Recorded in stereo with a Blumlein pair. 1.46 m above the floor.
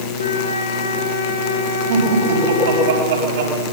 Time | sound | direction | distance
0.2 | a flute | 65° left | 5.5 m
1.9 | laughter | 65° right | 9.5 m